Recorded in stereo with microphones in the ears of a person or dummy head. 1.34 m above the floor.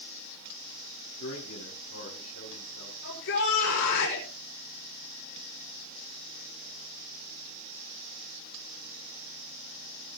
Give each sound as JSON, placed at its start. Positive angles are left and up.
{"t": 1.2, "sound": "a man speaking", "side_deg": 80, "distance_m": 7.5}
{"t": 3.0, "sound": "a shout", "side_deg": 75, "distance_m": 6.0}